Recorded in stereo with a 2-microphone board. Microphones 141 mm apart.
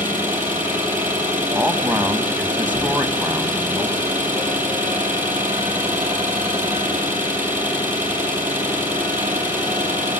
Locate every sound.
0.0 s an engine running: 15° right (ahead or behind), 6 m
1.6 s a man speaking: 10° right (ahead or behind), 2 m